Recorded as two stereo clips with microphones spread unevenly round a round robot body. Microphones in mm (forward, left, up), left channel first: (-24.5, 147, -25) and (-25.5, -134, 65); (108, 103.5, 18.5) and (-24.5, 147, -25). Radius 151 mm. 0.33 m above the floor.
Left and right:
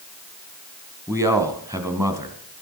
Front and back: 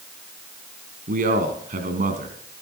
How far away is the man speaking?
About 2 m.